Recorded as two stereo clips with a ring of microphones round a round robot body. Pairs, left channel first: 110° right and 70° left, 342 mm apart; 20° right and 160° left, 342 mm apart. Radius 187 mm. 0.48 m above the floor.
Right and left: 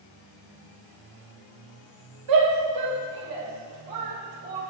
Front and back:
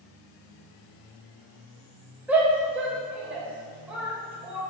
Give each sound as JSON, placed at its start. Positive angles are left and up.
{"t": 2.3, "sound": "a shout", "azimuth_deg": 70, "distance_m": 3.0}